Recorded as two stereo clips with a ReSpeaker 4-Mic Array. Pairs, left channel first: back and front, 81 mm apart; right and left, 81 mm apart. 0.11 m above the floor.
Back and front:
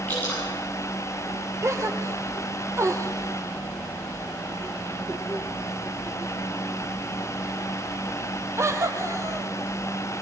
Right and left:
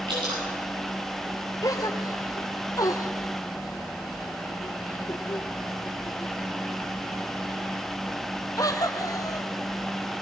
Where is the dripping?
110° left, 10 m.